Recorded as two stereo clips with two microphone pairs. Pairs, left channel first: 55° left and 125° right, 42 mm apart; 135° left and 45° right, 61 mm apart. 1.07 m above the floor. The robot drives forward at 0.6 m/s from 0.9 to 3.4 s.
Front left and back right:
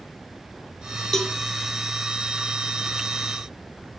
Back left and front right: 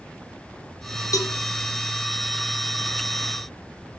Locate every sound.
1.1 s a cowbell: 135° left, 1.0 m; by 1.4 s 140° left, 1.1 m